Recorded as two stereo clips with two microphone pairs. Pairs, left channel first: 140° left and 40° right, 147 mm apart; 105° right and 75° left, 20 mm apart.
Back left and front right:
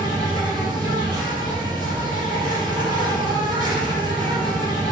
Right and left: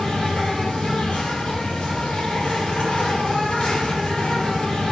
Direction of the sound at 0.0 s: 95° right.